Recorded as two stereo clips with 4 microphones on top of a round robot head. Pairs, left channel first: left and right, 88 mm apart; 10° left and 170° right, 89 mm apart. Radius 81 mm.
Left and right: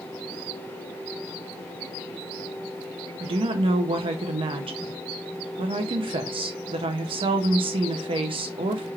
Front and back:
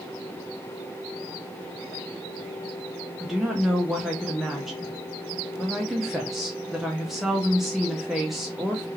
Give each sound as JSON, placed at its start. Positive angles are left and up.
{"t": 3.2, "sound": "a woman speaking", "azimuth_deg": -85, "distance_m": 0.5}